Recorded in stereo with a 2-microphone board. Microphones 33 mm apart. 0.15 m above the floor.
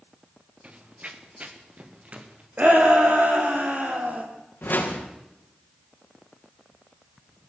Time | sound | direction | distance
0.6 | running footsteps | 45° right (ahead or behind) | 2.5 m
2.6 | a shout | 60° right (ahead or behind) | 5 m
4.6 | a whoosh | 80° left | 4.5 m